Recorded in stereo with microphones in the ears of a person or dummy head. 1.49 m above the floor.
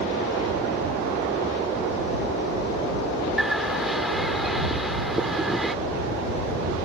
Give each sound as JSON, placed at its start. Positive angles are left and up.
{"t": 3.4, "sound": "a bird", "side_deg": 0}